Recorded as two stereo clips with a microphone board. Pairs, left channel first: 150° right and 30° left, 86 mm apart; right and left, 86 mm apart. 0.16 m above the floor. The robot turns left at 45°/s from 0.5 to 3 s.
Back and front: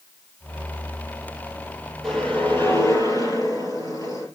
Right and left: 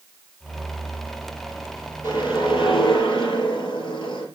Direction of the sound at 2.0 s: 65° right.